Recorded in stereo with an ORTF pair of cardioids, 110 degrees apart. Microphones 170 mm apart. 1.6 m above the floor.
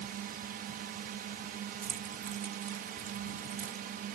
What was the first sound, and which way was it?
A drone, 65° right.